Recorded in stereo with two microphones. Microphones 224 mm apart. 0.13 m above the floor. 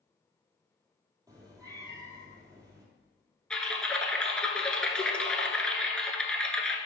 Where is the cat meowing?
15° right (ahead or behind), 1.6 m.